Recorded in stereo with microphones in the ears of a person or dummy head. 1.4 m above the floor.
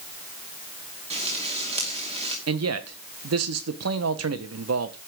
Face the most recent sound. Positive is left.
turn(degrees=-70)  # may be behind; listen again after turning